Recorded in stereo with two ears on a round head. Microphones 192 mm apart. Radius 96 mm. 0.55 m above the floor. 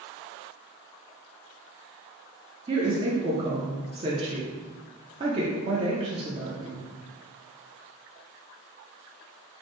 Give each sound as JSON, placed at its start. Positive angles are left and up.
{"t": 2.7, "sound": "a woman speaking", "side_deg": -25, "distance_m": 0.6}